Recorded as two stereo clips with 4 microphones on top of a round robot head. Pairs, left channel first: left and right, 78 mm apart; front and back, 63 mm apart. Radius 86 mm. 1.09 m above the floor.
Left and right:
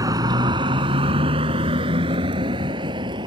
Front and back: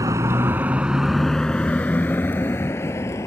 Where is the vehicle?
135° right; by 3.3 s 55° right.